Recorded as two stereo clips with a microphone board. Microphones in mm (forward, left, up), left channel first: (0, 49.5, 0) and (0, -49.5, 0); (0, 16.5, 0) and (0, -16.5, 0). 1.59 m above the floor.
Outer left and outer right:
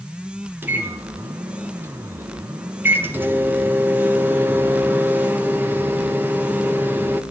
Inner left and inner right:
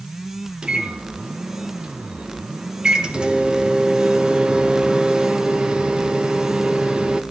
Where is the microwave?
20° right (ahead or behind), 1.4 m.